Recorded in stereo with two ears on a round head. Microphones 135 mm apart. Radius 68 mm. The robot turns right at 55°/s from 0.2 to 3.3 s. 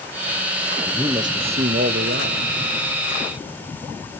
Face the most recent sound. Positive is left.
turn(degrees=-35)